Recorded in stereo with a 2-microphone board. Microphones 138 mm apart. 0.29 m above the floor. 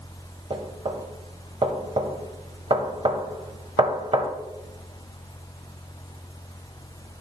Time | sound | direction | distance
0.5 | knocking | 40° right (ahead or behind) | 0.7 m